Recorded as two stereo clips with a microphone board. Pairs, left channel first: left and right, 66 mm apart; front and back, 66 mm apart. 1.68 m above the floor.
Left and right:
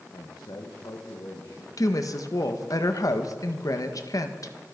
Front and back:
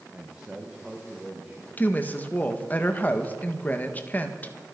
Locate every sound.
0.1 s a man speaking: 105° left, 1.6 m; by 1.7 s 95° left, 2.5 m
1.8 s a woman speaking: 60° left, 1.6 m